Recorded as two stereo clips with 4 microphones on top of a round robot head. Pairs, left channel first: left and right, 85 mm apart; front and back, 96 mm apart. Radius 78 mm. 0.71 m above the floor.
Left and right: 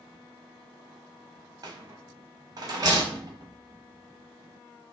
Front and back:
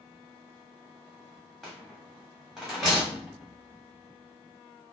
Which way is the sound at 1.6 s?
90° right.